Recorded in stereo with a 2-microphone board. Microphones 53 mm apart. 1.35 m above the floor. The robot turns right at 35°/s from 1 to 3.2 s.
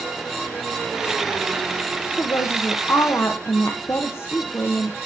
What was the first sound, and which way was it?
A woman speaking, 85° left.